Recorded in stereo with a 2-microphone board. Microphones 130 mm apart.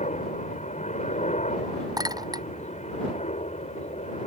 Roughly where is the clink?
Right.